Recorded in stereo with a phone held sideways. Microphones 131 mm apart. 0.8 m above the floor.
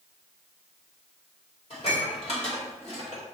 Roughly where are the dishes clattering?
Left.